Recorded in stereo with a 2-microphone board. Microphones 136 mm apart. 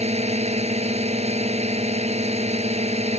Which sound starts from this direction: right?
A drone, at 0.0 s.